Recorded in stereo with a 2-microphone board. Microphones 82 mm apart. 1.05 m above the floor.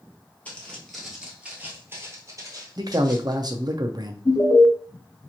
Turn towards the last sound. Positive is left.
turn(degrees=55)  # may be behind; listen again after turning